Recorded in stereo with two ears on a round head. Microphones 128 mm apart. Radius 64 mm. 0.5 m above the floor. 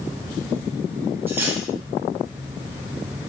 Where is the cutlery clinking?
15° right (ahead or behind), 2.5 m.